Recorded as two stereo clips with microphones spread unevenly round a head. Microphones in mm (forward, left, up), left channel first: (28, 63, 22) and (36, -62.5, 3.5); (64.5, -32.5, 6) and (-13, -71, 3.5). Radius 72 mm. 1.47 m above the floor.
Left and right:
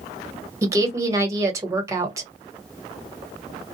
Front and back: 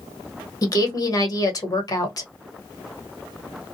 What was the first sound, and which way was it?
A woman speaking, 20° right.